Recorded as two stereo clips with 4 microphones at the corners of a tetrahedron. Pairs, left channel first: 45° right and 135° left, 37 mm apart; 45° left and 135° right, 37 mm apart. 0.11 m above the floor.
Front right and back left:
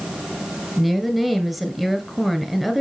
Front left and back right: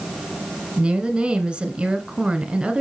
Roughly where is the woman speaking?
Behind right.